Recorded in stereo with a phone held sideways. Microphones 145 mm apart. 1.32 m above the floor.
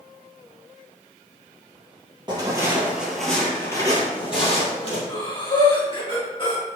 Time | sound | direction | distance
2.3 | footsteps | 30° right (ahead or behind) | 1.5 m
5.1 | breathing | 35° left (ahead or behind) | 1.4 m